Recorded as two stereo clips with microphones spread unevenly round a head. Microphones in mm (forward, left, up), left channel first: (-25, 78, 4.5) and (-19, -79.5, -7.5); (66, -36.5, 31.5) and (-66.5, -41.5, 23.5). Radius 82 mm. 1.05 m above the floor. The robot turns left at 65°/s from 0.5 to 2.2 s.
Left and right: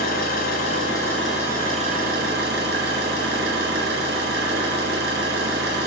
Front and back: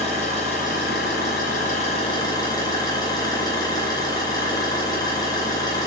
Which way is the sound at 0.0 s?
50° left.